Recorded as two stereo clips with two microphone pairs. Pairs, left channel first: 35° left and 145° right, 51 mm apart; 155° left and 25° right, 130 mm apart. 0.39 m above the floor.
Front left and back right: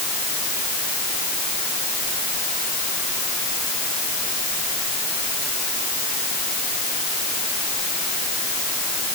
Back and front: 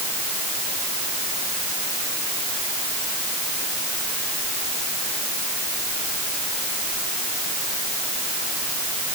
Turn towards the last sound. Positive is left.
No sound to turn to.